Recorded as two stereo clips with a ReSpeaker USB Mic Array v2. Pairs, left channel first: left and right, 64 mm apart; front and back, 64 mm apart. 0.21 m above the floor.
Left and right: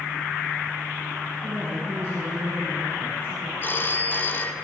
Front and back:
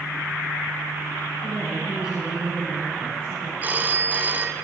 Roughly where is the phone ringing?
Behind left.